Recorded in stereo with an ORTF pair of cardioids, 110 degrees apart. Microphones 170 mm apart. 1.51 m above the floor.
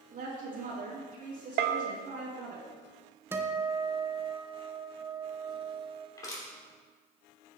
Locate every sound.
0.1 s a woman speaking: 55° right, 3 m
1.6 s a bell: 65° right, 0.8 m
3.3 s a guitar: 15° right, 1.1 m
6.2 s crushing: 20° left, 3 m